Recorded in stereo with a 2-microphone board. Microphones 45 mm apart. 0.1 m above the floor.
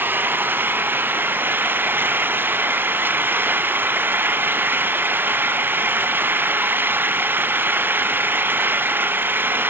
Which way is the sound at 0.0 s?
50° right (ahead or behind).